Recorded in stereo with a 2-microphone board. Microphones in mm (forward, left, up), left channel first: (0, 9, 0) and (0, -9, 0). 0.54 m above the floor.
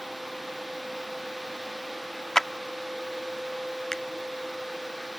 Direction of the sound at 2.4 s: 20° left (ahead or behind).